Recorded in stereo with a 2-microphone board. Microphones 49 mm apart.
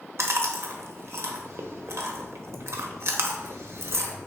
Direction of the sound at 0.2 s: 65° right (ahead or behind).